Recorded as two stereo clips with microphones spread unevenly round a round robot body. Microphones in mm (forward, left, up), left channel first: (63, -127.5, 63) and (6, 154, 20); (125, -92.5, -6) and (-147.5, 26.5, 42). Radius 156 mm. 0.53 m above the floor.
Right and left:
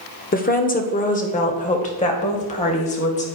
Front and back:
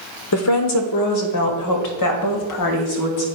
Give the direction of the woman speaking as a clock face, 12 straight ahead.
1 o'clock.